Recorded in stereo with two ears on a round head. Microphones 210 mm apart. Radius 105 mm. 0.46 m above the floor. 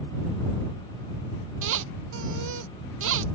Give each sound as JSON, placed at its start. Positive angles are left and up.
{"t": 1.6, "sound": "a squeak", "side_deg": -60}